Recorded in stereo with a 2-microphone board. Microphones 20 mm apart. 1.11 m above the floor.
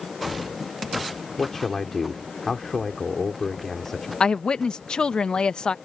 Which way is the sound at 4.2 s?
40° left (ahead or behind).